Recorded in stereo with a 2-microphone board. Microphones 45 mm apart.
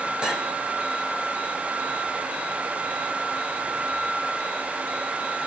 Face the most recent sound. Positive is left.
turn(degrees=-20)  # may be behind; listen again after turning